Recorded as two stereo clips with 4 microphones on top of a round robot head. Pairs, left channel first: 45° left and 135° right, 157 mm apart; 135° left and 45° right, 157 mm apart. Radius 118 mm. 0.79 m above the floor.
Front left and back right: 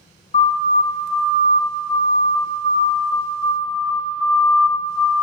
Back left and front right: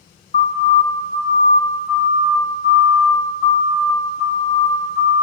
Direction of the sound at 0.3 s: 100° left.